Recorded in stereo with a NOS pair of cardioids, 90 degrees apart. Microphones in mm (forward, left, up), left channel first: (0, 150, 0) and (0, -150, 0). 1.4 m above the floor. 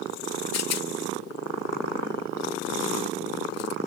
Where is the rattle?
60° left.